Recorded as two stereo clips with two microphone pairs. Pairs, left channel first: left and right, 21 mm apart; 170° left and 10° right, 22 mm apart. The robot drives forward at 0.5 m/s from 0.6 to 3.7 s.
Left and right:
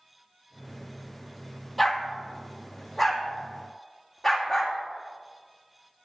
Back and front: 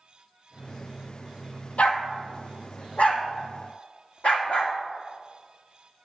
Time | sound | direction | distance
1.8 | a dog barking | 175° left | 1.2 m